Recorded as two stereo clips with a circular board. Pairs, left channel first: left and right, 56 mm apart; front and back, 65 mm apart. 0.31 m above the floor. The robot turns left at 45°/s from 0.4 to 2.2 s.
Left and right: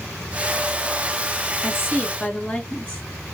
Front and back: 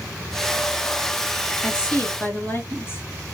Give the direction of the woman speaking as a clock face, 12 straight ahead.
10 o'clock.